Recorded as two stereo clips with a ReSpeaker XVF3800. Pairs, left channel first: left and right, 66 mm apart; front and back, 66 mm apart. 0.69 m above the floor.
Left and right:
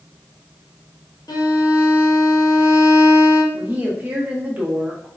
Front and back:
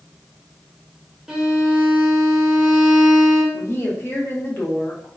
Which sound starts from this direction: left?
A violin, at 1.3 s.